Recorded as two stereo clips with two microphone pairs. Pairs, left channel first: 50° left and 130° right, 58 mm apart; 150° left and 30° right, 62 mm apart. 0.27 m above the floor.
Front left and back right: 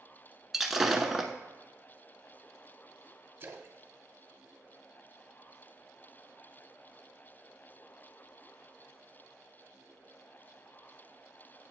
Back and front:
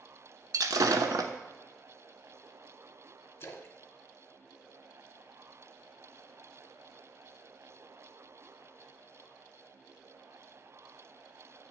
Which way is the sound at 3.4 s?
175° right.